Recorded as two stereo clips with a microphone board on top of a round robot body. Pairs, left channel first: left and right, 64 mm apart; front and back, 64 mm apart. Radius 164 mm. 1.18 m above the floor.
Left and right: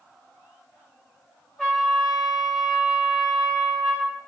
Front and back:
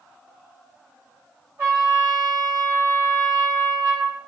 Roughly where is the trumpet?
Behind.